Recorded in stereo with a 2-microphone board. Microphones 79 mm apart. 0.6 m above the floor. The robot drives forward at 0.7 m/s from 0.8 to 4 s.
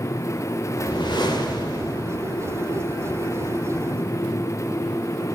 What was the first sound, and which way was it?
A whoosh, 70° left (ahead or behind).